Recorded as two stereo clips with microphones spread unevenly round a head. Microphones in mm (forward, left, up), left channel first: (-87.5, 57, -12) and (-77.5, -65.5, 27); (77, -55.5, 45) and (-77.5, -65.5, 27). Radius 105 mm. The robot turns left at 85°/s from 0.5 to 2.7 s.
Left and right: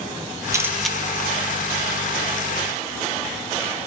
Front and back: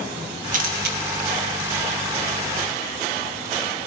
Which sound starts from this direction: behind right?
A camera shutter, at 0.5 s.